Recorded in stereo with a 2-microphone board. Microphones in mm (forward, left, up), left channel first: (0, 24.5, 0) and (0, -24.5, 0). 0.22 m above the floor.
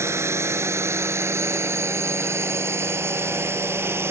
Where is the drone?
65° right (ahead or behind); by 4.1 s 55° right (ahead or behind).